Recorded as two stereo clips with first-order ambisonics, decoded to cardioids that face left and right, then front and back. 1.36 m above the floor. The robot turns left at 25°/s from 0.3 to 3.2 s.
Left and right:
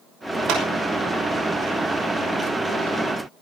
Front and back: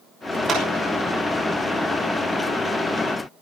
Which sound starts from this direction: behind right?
A clap, at 0.5 s.